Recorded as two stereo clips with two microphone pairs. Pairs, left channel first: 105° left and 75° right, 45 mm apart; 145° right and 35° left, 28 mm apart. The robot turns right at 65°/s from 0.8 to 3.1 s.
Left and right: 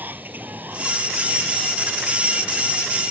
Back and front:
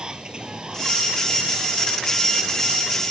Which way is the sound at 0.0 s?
25° right.